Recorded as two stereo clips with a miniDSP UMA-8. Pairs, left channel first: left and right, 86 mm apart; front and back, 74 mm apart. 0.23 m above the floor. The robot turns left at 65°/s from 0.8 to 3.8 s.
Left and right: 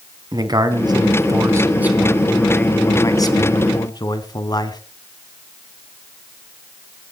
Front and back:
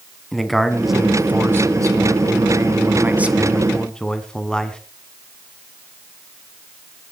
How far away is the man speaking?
About 1.9 m.